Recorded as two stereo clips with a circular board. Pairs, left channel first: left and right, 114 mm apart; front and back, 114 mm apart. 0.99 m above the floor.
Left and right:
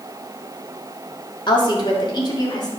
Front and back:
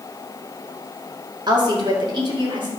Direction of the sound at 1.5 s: 130° left.